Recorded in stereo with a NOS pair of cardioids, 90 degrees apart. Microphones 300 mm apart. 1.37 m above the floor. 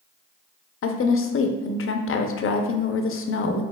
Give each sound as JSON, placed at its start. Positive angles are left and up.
{"t": 0.8, "sound": "a woman speaking", "azimuth_deg": 45, "distance_m": 0.6}